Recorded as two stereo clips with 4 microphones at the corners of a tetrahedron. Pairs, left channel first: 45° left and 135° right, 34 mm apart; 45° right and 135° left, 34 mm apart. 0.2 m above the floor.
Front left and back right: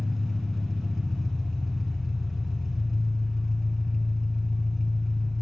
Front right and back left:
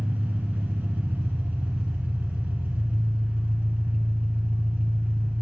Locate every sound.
0.0 s an engine running: 135° left, 0.7 m